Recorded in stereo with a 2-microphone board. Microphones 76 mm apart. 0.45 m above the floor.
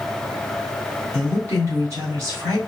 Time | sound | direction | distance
1.1 | a woman speaking | 40° right (ahead or behind) | 2.5 m